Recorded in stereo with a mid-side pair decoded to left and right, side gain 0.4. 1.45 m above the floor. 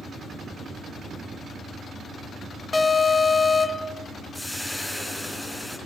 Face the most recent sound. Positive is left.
turn(degrees=5)